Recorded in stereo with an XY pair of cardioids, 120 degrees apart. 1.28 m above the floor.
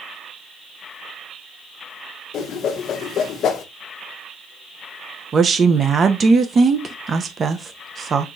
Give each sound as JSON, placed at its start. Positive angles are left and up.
{"t": 2.3, "sound": "a whoosh", "azimuth_deg": 55, "distance_m": 0.9}
{"t": 5.3, "sound": "a woman speaking", "azimuth_deg": -30, "distance_m": 0.8}